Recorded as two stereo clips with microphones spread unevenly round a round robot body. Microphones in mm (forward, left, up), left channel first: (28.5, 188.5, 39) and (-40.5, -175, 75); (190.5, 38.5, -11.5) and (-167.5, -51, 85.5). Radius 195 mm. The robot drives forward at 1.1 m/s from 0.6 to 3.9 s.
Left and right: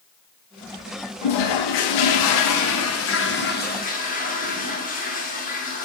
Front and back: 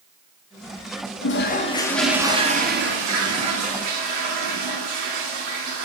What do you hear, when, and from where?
1.2 s a toilet flushing: 65° left, 1.7 m; by 5.8 s 145° left, 3 m